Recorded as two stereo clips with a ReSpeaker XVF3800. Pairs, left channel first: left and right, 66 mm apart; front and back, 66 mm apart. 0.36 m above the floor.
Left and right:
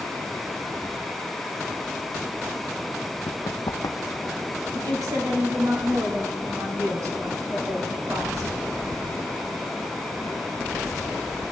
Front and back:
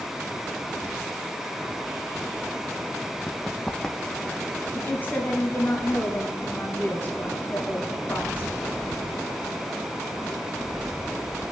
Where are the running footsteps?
85° left, 0.8 m; by 4.5 s 70° left, 1.5 m.